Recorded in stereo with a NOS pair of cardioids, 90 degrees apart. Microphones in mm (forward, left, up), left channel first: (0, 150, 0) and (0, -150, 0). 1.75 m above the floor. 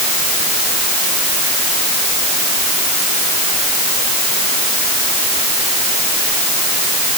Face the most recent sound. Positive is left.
No sound to turn to.